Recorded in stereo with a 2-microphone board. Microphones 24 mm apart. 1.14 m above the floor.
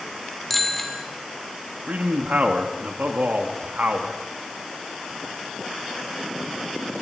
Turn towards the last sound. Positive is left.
turn(degrees=-75)  # may be behind; listen again after turning